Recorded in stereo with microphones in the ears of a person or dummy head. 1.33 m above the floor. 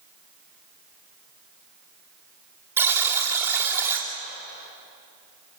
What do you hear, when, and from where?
2.8 s a buzzer: 15° right (ahead or behind), 3 m